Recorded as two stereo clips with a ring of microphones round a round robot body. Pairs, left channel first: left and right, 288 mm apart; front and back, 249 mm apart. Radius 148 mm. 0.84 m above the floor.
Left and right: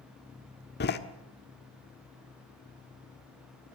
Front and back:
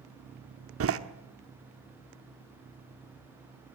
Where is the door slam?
145° left, 1.3 m.